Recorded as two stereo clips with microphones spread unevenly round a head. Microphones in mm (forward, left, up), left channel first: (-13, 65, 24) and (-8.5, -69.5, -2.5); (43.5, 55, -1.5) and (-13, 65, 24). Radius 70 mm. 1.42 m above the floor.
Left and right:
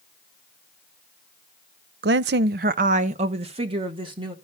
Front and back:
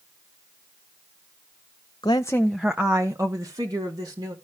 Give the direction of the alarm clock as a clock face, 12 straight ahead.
I don't hear an alarm clock.